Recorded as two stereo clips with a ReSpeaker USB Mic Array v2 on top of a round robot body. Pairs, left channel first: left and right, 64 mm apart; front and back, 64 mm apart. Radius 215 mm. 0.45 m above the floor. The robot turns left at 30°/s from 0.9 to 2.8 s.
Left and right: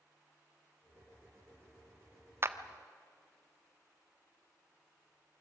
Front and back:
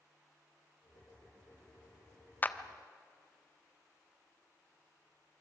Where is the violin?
No violin in this recording.